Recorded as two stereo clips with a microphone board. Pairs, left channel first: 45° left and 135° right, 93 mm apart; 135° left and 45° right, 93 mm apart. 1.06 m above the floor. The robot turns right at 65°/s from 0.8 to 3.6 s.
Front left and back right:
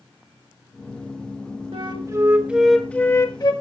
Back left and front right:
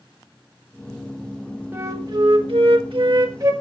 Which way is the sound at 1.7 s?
110° right.